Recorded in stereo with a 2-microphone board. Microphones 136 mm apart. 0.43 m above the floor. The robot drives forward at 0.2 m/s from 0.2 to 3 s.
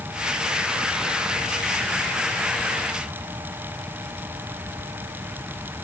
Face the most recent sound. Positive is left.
No sound to turn to.